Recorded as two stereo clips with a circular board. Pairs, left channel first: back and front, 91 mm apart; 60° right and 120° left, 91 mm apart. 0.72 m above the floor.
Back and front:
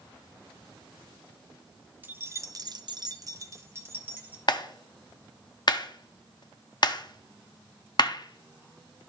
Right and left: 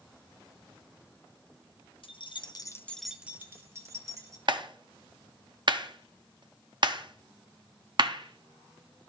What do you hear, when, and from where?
2.0 s keys jangling: 70° right, 0.8 m; by 4.4 s 70° left, 1.7 m
4.5 s a clap: 150° left, 0.6 m